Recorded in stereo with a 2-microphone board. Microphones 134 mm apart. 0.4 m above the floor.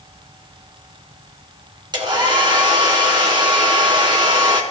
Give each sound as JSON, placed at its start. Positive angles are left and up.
{"t": 1.9, "sound": "a hair dryer", "side_deg": -35, "distance_m": 2.5}